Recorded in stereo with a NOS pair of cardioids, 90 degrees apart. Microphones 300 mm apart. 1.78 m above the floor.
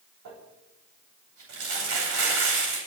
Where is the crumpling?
65° right, 9.5 m.